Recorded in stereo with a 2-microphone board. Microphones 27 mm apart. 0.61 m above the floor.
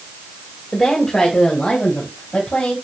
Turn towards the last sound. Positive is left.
turn(degrees=55)  # may be behind; listen again after turning